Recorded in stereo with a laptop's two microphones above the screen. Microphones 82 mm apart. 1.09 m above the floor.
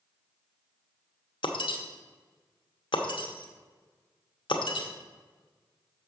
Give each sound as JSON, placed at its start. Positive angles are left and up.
{"t": 1.4, "sound": "breaking glass", "side_deg": 75, "distance_m": 0.9}